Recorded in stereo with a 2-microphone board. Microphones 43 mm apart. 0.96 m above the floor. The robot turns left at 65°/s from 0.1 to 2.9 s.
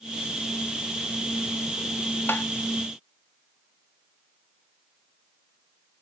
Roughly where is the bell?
I don't hear a bell.